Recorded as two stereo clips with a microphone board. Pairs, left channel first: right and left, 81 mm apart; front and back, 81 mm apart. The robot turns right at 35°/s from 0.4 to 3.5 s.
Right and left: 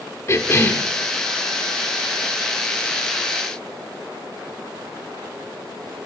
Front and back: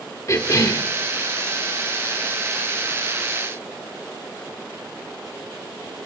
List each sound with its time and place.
0.3 s a cough: 45° right, 1.4 m; by 0.9 s 30° right, 1.4 m